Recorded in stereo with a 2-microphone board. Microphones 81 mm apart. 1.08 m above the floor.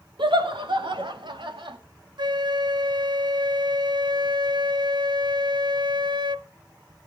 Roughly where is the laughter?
Right.